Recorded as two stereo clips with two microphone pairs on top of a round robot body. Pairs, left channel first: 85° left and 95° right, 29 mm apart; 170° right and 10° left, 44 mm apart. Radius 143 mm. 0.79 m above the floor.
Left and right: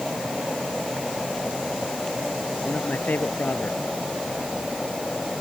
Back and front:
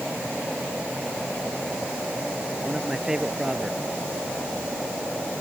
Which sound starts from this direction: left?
A man speaking, at 2.6 s.